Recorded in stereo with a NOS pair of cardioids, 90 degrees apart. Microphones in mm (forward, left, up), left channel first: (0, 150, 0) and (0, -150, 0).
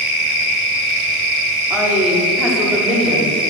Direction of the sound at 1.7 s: 5° right.